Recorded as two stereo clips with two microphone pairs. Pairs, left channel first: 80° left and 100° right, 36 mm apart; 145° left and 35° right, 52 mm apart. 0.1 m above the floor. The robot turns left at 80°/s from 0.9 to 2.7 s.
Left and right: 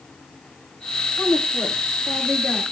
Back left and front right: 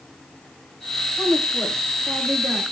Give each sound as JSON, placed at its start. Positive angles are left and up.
{"t": 1.2, "sound": "a woman speaking", "azimuth_deg": 70, "distance_m": 9.5}